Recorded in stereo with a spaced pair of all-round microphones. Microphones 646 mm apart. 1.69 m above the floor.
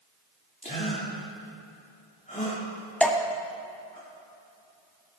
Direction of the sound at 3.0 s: Centre (ahead or behind).